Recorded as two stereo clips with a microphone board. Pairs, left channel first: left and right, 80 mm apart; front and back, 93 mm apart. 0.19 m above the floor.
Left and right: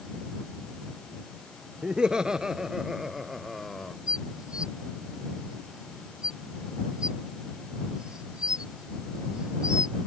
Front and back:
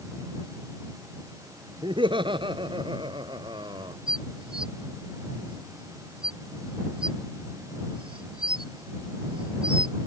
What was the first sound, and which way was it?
Laughter, 170° right.